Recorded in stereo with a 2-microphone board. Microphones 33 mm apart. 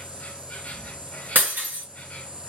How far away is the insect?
About 0.9 m.